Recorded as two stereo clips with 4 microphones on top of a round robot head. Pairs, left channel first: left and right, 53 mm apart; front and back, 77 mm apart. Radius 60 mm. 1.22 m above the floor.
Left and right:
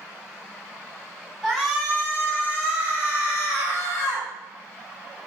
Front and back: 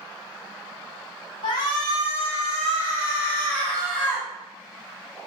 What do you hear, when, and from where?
1.4 s a shout: 5° left, 1.5 m; by 4.3 s 85° left, 2 m